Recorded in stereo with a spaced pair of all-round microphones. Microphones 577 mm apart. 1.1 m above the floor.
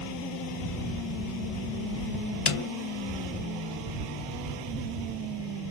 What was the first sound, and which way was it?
A snare drum, 60° left (ahead or behind).